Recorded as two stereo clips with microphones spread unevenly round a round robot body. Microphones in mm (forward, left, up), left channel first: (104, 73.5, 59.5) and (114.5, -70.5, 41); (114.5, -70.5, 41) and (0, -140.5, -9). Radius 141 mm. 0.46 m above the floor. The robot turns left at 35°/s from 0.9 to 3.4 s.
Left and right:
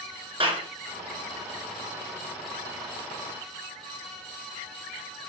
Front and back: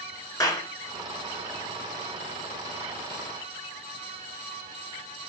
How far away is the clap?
About 7 m.